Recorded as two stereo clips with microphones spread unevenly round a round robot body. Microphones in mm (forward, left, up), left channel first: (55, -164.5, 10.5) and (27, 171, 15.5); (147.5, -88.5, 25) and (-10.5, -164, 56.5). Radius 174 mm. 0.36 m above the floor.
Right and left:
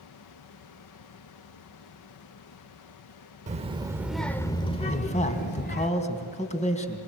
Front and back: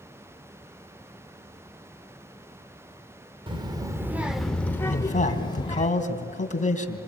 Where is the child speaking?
150° left, 1.0 m; by 5.9 s 30° right, 1.6 m.